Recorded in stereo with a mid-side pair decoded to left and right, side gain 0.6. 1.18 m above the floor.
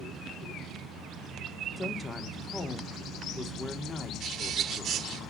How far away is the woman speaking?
About 2.5 m.